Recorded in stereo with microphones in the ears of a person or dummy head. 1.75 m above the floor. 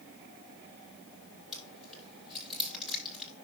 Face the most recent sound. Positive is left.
turn(degrees=-5)  # may be behind; listen again after turning